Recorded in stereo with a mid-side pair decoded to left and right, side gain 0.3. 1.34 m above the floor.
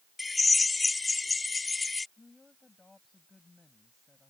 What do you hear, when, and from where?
0.2 s a drill: 40° left
2.2 s a woman speaking: 35° left